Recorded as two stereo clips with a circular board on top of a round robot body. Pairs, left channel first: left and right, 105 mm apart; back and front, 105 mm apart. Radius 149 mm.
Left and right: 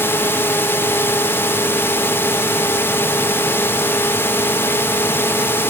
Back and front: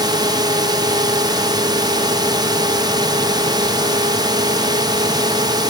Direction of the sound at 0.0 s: 30° left.